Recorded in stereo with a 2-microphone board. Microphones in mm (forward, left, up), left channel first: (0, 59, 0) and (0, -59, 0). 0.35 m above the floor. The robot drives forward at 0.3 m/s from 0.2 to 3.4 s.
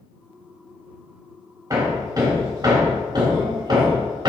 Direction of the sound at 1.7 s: 35° right (ahead or behind).